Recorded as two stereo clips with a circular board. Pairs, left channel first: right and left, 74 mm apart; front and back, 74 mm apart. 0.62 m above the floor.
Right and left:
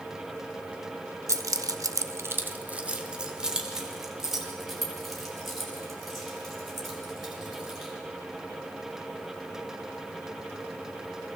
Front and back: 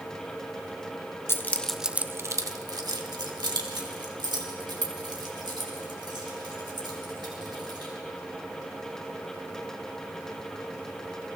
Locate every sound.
1.3 s keys jangling: 50° left, 0.8 m; by 7.9 s straight behind, 5.5 m